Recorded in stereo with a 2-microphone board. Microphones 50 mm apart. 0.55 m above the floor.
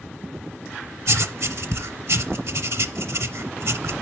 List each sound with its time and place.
1.1 s writing: 65° right (ahead or behind), 0.6 m